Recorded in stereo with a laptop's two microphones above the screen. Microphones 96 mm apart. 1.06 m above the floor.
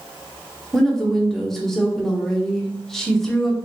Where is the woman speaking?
5° left (ahead or behind), 0.8 m.